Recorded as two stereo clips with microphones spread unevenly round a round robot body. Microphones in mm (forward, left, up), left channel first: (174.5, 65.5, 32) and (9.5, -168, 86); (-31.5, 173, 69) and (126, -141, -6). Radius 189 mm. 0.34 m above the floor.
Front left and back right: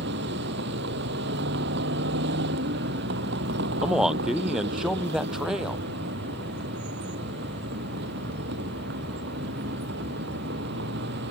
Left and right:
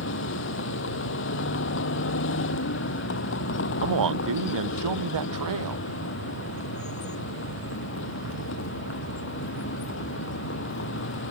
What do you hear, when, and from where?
0.0 s a vehicle: 175° left
3.8 s a man speaking: 35° right